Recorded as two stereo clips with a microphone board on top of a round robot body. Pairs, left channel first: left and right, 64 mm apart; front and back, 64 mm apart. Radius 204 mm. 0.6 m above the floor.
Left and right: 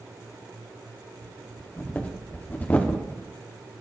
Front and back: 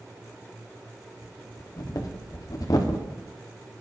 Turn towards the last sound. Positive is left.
turn(degrees=25)